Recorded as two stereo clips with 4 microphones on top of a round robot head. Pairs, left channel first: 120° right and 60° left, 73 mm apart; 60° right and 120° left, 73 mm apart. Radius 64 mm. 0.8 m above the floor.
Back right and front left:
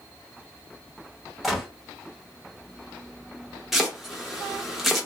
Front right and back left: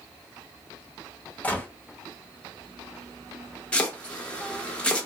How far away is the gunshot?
About 1.1 m.